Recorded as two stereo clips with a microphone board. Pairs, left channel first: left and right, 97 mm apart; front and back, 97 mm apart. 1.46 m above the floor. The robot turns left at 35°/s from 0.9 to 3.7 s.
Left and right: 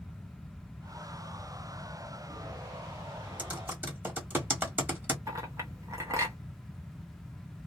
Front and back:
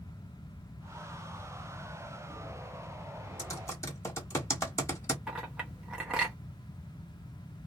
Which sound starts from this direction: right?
A clink, at 5.3 s.